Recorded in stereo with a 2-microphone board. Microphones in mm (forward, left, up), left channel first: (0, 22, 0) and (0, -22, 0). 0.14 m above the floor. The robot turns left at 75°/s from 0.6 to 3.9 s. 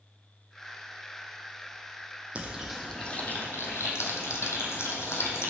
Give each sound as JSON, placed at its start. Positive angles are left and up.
{"t": 2.4, "sound": "frying", "side_deg": -30, "distance_m": 1.0}